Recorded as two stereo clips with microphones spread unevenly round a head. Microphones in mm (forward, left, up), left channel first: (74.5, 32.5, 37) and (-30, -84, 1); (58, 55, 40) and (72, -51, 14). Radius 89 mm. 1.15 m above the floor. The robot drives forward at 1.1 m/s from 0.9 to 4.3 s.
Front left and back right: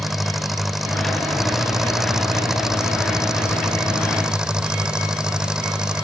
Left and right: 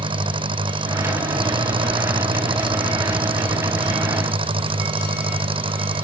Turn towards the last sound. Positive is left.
turn(degrees=-45)